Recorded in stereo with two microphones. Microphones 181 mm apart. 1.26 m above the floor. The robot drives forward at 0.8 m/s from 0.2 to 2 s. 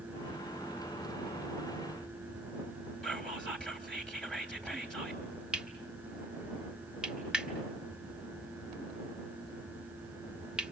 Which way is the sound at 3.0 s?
5° left (ahead or behind).